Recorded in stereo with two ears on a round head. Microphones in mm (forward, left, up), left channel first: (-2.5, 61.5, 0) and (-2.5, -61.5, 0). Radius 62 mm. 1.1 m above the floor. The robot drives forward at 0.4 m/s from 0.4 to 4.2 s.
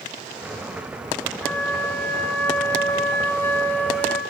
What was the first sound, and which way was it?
A flute, 10° left (ahead or behind).